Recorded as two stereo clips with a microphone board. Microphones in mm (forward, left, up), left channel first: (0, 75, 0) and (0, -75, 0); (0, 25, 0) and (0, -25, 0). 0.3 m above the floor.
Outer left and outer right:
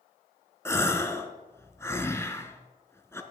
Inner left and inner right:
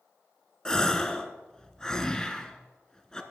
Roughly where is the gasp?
Centre.